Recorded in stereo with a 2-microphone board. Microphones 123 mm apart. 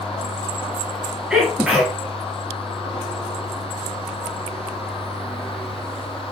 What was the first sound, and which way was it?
A sneeze, 5° right (ahead or behind).